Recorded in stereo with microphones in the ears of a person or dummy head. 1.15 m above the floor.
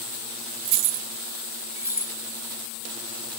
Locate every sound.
0.7 s keys jangling: 65° right (ahead or behind), 0.6 m; by 2.1 s 10° right (ahead or behind), 1.1 m